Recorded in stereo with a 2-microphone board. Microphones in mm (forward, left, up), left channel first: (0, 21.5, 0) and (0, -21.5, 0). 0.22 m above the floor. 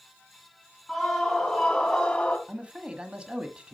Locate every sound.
0.9 s a scream: centre (ahead or behind), 2.5 m; by 2.4 s 25° left (ahead or behind), 1.9 m
2.5 s a man speaking: 25° right (ahead or behind), 1.3 m